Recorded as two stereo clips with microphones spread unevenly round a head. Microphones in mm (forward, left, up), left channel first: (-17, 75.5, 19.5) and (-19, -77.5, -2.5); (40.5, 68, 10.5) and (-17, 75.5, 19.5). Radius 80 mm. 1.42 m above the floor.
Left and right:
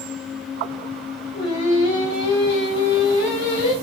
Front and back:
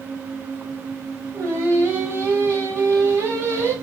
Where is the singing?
140° left, 2.5 m.